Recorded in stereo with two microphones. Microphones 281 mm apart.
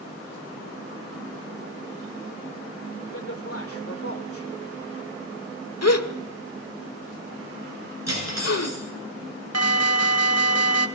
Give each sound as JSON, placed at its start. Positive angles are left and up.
{"t": 3.1, "sound": "a man speaking", "side_deg": 55, "distance_m": 2.5}
{"t": 5.8, "sound": "a gasp", "side_deg": 70, "distance_m": 1.2}
{"t": 8.1, "sound": "cutlery clinking", "side_deg": -85, "distance_m": 7.0}
{"t": 9.5, "sound": "an alarm", "side_deg": -70, "distance_m": 1.2}